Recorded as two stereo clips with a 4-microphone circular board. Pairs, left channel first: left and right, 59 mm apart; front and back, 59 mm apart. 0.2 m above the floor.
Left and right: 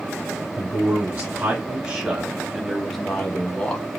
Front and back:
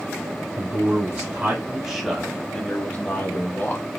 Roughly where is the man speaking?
Behind right.